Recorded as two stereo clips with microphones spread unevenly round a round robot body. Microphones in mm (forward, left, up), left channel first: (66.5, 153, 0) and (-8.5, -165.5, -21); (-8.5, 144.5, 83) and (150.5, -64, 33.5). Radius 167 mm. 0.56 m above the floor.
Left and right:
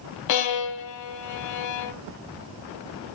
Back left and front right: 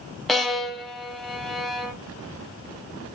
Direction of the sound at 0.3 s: 40° left.